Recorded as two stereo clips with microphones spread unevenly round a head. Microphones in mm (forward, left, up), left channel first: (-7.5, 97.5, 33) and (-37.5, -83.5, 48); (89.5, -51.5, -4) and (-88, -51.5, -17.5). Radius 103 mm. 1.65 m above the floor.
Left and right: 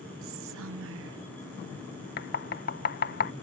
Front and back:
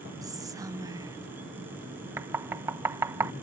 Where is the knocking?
100° left.